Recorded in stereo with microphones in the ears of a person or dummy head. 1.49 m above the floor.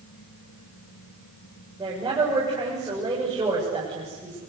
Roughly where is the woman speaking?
Centre.